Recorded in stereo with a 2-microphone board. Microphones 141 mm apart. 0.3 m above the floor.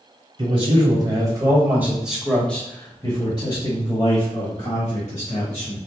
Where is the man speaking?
40° right (ahead or behind), 1.9 m; by 5.8 s 60° left (ahead or behind), 2.5 m.